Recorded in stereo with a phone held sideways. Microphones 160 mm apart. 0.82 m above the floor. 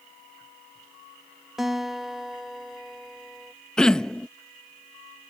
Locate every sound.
1.6 s a guitar: centre (ahead or behind)
3.8 s throat clearing: 5° left (ahead or behind)